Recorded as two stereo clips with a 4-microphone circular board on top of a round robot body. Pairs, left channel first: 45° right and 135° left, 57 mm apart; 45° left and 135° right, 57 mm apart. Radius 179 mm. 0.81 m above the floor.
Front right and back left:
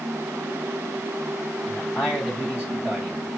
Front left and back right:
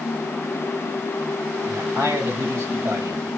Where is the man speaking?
160° right, 4.5 m.